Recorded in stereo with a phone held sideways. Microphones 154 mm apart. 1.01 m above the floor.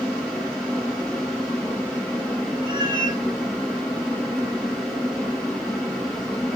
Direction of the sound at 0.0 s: 5° left (ahead or behind).